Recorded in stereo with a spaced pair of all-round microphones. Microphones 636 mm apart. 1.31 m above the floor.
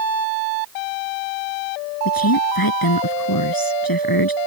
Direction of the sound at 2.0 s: 35° left (ahead or behind).